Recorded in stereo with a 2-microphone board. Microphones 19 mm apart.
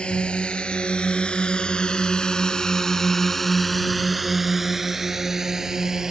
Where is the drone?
75° left (ahead or behind); by 6.1 s 30° right (ahead or behind).